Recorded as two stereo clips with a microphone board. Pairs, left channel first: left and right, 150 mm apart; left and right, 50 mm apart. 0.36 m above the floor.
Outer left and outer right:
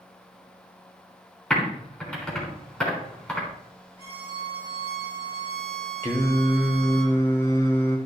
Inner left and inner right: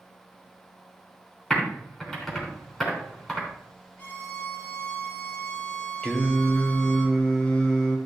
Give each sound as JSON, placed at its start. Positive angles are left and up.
{"t": 1.5, "sound": "typing on a keyboard", "side_deg": 5, "distance_m": 3.5}
{"t": 4.0, "sound": "a violin", "side_deg": 40, "distance_m": 6.0}
{"t": 6.0, "sound": "singing", "side_deg": 20, "distance_m": 1.5}